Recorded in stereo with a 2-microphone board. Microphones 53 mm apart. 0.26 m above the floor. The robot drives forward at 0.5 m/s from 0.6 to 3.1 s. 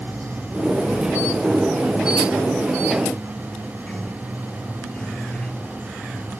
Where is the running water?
20° left (ahead or behind); by 6.4 s 15° left (ahead or behind).